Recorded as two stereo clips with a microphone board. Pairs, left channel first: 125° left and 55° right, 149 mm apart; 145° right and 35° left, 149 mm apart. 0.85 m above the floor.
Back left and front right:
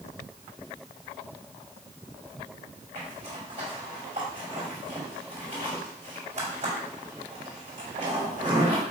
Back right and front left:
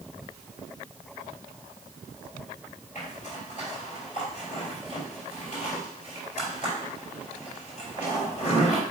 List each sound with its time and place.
3.0 s a zipper: 100° right, 4 m